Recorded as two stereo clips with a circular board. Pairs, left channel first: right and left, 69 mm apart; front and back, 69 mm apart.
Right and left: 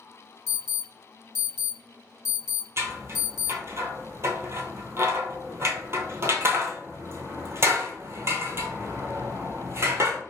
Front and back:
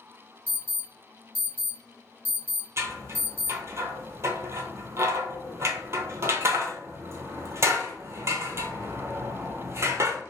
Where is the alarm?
20° left, 1.7 m.